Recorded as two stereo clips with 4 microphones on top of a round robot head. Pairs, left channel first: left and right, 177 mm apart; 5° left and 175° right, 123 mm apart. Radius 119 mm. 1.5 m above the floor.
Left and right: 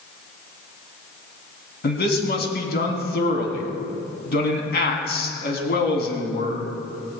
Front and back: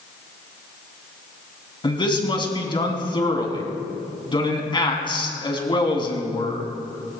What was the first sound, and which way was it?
A man speaking, 60° left.